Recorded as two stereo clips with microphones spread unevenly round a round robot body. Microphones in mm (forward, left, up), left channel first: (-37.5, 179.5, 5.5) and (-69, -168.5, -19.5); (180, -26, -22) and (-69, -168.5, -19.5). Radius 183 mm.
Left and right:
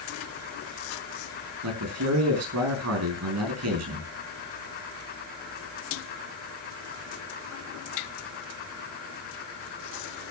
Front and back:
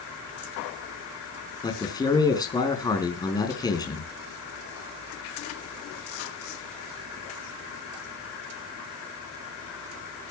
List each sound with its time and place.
1.6 s a man speaking: 45° right, 4.5 m